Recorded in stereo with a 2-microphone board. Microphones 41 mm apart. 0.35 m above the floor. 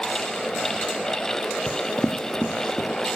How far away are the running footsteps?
About 0.6 m.